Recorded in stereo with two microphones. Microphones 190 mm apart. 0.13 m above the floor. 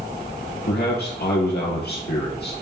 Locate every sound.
0.7 s a man speaking: 60° left (ahead or behind), 2.5 m